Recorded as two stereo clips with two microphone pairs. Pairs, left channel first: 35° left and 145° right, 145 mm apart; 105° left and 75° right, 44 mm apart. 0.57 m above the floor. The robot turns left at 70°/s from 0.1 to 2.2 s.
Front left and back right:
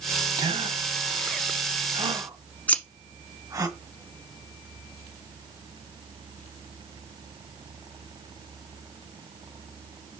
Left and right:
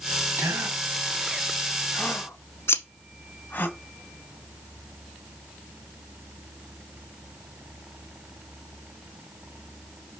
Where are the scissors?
115° left, 0.9 m.